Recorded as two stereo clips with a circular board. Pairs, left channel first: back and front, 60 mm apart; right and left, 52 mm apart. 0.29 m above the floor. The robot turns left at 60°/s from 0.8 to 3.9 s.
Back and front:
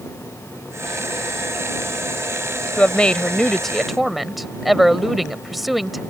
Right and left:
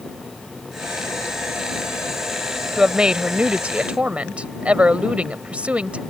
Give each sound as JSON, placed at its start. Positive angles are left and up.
{"t": 2.8, "sound": "a woman speaking", "azimuth_deg": 155}